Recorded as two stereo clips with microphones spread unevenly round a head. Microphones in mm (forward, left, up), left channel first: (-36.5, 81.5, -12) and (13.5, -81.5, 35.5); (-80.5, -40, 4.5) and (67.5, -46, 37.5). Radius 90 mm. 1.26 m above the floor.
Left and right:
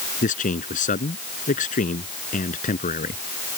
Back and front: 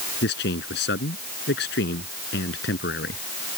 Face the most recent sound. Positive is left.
turn(degrees=155)